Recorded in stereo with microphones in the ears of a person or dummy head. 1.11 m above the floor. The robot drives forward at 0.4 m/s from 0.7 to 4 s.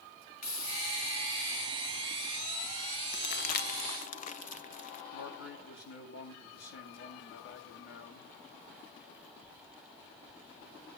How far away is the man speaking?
About 8 m.